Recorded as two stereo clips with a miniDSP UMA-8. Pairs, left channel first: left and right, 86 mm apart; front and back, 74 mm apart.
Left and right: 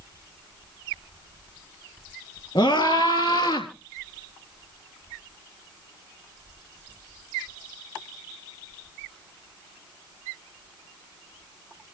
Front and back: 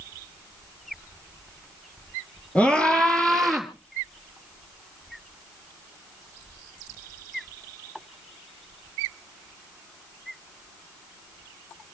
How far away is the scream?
About 3 m.